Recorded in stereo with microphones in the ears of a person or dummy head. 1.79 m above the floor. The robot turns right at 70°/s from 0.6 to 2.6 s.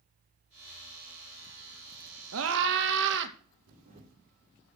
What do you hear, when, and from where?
2.3 s a scream: 85° right, 2.5 m; by 3.4 s 70° right (ahead or behind), 2.5 m
3.7 s a camera shutter: 45° right (ahead or behind), 5 m